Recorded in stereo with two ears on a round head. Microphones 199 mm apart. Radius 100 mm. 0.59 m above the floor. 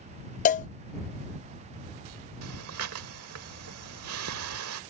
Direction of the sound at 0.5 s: 35° left (ahead or behind).